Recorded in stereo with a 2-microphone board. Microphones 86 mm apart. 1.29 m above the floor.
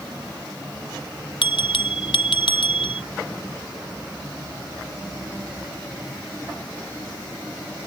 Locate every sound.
1.4 s a bell: 75° left (ahead or behind)